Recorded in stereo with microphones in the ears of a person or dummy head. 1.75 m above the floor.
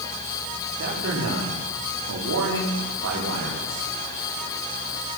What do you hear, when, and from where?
0.8 s a man speaking: 65° right (ahead or behind), 5 m; by 3.8 s 85° right, 5.5 m